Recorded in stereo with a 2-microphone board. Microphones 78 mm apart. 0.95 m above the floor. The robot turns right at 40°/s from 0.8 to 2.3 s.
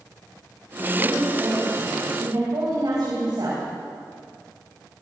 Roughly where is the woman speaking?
Behind.